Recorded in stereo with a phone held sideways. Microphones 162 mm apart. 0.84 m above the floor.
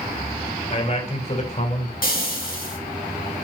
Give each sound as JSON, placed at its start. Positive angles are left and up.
{"t": 0.7, "sound": "a man speaking", "side_deg": 40, "distance_m": 3.0}
{"t": 2.0, "sound": "frying", "side_deg": 65, "distance_m": 3.5}